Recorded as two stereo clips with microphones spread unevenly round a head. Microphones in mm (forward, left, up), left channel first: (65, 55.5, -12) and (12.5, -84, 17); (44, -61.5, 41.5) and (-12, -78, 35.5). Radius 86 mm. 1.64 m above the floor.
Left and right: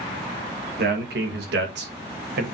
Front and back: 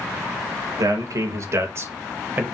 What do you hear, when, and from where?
0.8 s a man speaking: 150° right, 2.5 m; by 2.4 s 105° right, 2.5 m